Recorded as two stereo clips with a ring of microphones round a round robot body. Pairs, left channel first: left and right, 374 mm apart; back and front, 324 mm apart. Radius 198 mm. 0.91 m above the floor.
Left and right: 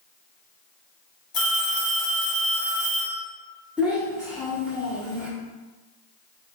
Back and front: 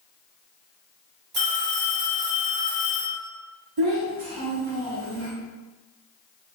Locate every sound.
1.3 s a phone ringing: 40° left, 1.8 m
3.8 s a child speaking: 5° right, 1.4 m